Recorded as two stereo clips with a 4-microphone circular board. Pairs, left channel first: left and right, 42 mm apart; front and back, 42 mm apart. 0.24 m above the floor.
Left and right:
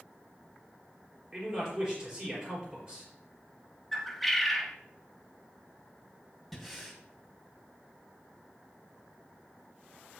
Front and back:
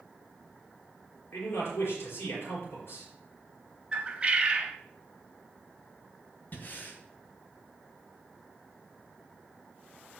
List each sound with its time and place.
1.3 s a man speaking: 25° right, 4.5 m
3.9 s a bird: 175° left, 0.9 m
6.5 s breathing: 5° right, 1.9 m